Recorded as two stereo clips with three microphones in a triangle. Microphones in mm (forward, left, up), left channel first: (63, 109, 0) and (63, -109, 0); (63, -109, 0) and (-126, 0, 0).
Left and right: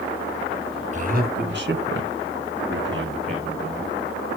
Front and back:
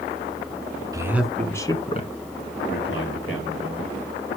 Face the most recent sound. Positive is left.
turn(degrees=-50)